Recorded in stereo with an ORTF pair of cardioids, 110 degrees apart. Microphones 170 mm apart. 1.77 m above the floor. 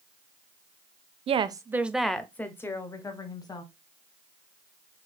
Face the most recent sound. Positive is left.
turn(degrees=25)